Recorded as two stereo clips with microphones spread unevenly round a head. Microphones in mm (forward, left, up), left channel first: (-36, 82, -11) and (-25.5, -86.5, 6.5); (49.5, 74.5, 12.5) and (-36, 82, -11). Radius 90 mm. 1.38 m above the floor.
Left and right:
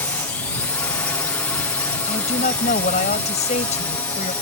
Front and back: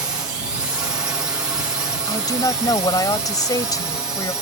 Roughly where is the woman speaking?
Ahead left.